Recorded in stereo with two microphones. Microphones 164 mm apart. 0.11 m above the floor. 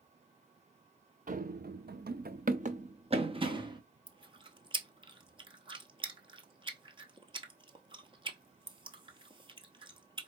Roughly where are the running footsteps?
Right.